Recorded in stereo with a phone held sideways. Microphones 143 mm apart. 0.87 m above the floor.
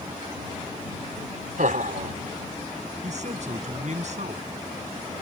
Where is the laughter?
75° right (ahead or behind).